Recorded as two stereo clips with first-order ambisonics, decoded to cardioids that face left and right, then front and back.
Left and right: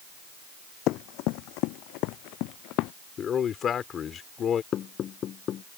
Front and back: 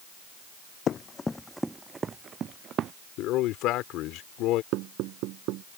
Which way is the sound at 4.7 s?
145° left.